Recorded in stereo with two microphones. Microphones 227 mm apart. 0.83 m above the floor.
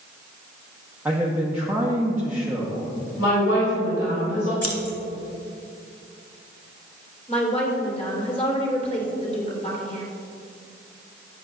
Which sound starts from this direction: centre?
A man speaking, at 1.1 s.